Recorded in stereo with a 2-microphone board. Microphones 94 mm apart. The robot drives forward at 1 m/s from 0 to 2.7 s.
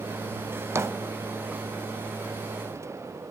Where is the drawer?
25° right (ahead or behind), 0.6 m; by 1.6 s 15° right (ahead or behind), 1.0 m.